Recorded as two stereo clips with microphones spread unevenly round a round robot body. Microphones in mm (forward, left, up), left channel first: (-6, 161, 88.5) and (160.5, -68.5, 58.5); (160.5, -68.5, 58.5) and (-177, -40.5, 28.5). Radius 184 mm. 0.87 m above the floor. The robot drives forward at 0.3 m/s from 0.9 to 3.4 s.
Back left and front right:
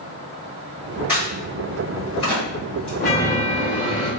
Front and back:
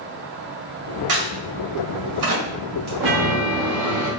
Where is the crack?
140° right, 2.0 m; by 2.9 s 145° right, 2.5 m.